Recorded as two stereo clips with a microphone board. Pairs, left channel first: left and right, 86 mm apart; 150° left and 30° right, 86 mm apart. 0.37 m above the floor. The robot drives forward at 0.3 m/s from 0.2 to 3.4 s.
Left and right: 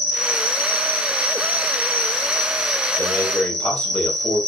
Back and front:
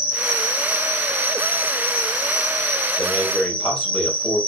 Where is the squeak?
I don't hear a squeak.